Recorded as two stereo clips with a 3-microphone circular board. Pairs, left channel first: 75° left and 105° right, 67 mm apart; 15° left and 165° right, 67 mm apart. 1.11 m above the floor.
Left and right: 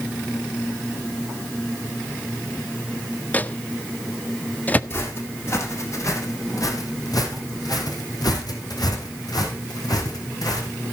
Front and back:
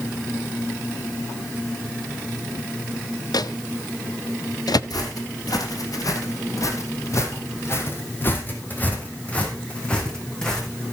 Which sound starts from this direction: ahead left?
Footsteps, at 4.9 s.